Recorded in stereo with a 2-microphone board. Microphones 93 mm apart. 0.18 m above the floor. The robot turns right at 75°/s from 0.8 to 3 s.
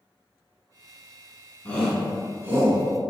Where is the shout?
15° left (ahead or behind), 1.4 m; by 2.8 s 35° right (ahead or behind), 1.4 m.